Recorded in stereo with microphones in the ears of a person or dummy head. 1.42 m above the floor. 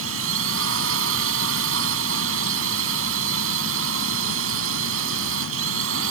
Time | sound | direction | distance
0.0 | a drone | 80° right | ?